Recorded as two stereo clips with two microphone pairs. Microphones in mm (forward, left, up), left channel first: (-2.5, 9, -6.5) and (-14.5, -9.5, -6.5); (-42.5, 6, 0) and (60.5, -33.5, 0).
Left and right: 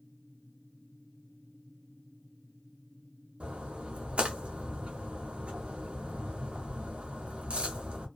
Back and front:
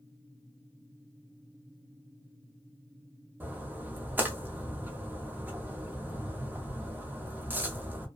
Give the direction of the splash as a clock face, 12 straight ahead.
3 o'clock.